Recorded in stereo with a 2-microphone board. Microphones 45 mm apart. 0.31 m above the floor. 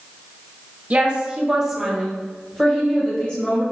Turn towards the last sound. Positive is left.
turn(degrees=35)  # may be behind; listen again after turning